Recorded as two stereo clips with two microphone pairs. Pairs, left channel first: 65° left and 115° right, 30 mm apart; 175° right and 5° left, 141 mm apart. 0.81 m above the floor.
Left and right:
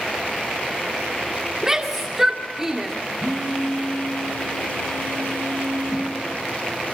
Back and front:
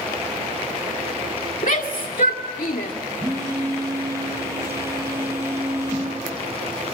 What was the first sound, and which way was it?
A shout, 170° left.